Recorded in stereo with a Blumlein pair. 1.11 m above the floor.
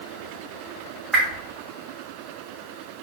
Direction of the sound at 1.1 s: 10° right.